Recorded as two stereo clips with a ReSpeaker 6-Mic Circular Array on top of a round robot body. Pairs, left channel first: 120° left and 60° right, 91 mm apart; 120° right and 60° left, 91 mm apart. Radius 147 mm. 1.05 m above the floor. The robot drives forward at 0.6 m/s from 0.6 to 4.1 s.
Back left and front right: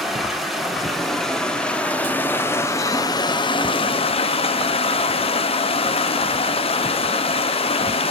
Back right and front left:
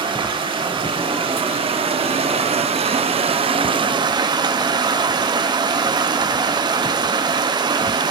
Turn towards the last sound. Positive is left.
turn(degrees=105)